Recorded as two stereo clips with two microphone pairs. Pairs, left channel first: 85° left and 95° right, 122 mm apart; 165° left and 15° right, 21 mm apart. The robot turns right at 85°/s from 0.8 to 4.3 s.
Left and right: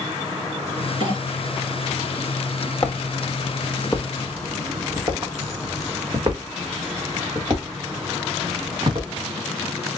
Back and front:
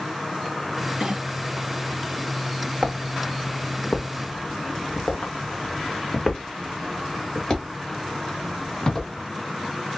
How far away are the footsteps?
About 1.0 m.